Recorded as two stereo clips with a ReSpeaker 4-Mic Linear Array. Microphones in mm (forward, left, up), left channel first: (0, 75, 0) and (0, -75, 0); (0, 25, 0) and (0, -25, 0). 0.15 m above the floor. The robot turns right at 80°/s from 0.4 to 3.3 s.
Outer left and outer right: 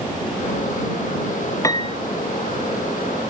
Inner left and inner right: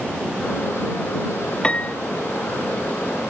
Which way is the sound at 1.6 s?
20° left (ahead or behind).